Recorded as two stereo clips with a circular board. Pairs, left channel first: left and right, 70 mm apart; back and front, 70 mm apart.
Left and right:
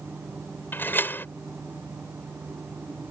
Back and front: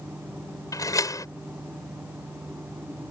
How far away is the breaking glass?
I don't hear breaking glass.